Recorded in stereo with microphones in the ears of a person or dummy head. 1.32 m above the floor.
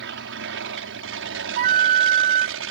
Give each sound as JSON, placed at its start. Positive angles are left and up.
{"t": 0.0, "sound": "an aircraft", "side_deg": -55}
{"t": 1.6, "sound": "a flute", "side_deg": -40}